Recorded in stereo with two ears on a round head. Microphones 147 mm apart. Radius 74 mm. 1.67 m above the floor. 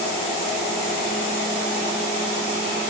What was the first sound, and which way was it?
Only background noise.